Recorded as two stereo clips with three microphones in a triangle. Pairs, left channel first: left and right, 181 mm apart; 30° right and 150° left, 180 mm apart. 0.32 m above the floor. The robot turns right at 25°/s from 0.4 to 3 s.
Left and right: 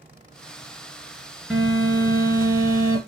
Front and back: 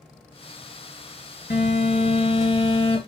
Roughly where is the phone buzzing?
Ahead.